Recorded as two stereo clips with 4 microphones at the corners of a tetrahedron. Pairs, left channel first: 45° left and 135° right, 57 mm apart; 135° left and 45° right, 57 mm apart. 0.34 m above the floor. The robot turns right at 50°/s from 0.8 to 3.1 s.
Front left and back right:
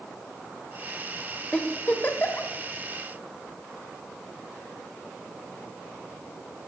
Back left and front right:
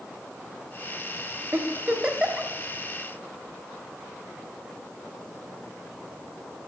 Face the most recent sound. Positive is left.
turn(degrees=65)